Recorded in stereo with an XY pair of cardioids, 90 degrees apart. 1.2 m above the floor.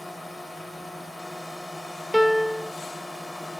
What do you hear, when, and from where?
0.0 s a drone: 10° left; by 3.6 s 5° left
2.1 s a piano: straight ahead